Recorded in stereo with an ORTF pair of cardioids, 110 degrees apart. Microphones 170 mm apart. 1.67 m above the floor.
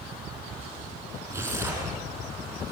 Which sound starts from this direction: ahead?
Tearing paper, at 1.3 s.